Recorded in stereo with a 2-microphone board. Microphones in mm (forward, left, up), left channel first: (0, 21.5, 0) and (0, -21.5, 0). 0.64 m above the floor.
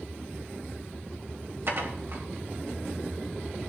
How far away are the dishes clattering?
About 2.0 m.